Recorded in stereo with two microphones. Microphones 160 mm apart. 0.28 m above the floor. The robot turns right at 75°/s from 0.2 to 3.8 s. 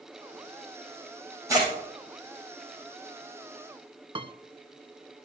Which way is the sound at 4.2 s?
35° right (ahead or behind).